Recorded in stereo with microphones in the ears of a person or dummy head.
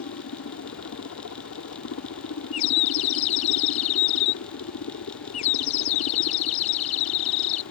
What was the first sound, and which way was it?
A helicopter, 70° left (ahead or behind).